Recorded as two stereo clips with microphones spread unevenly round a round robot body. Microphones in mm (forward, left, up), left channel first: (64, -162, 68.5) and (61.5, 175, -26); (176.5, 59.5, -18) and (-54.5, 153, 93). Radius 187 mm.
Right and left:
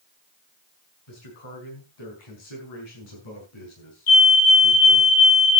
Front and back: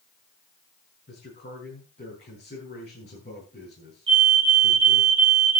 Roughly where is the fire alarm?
Behind right.